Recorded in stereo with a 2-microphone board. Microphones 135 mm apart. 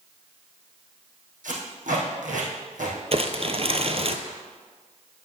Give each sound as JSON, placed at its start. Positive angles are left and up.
{"t": 1.4, "sound": "tape being pulled", "side_deg": -80, "distance_m": 3.0}
{"t": 3.1, "sound": "crumpling", "side_deg": -50, "distance_m": 0.8}